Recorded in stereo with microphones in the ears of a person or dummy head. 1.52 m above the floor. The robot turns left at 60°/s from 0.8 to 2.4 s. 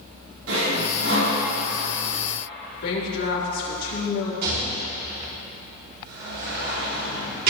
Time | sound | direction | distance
0.5 | sawing | 80° right | 4.5 m
2.8 | a woman speaking | 75° left (ahead or behind) | 3.5 m
4.4 | a rattle | 60° right (ahead or behind) | 5 m